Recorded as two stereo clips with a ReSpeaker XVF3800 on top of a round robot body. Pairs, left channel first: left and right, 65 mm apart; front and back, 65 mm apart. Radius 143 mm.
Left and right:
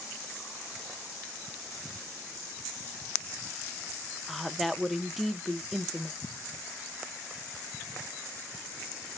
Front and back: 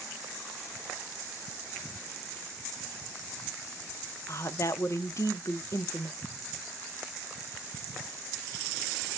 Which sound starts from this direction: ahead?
A woman speaking, at 4.3 s.